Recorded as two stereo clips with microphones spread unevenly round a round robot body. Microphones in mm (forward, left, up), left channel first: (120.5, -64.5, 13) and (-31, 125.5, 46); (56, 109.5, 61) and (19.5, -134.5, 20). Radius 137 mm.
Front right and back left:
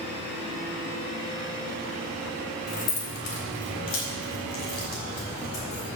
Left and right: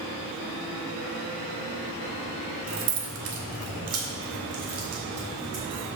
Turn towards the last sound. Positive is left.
turn(degrees=-80)